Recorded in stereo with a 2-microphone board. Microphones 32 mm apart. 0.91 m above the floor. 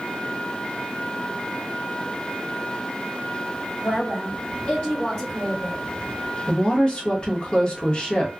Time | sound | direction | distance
3.8 | a woman speaking | 45° left (ahead or behind) | 2 m
6.5 | a woman speaking | 30° left (ahead or behind) | 1.1 m